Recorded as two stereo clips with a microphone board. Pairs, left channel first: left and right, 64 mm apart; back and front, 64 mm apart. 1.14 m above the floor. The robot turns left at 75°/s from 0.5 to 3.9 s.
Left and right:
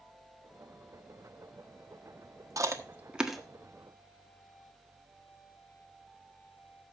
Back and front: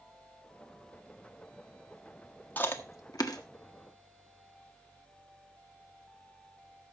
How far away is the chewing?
About 1.4 m.